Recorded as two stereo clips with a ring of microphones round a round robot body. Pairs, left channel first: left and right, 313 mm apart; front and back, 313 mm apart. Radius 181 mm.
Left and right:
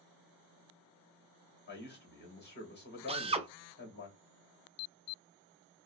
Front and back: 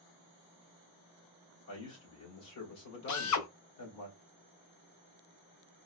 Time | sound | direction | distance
1.7 | a man speaking | 35° left | 2.5 m
3.1 | a drill | 20° right | 0.7 m